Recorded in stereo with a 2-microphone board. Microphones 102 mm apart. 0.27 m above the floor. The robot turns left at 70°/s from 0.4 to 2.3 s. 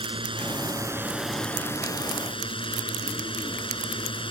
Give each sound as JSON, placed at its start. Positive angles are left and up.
{"t": 0.0, "sound": "a drone", "azimuth_deg": -115}